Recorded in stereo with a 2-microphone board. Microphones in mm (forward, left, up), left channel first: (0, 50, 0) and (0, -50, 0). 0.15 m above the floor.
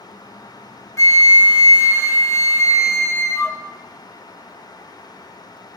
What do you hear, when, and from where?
1.0 s a flute: 30° left (ahead or behind), 0.6 m